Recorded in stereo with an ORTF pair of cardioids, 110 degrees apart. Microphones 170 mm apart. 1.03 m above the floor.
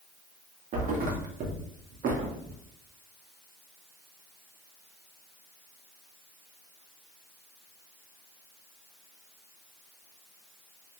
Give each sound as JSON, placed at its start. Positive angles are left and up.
{"t": 0.7, "sound": "a thud", "azimuth_deg": -55, "distance_m": 1.0}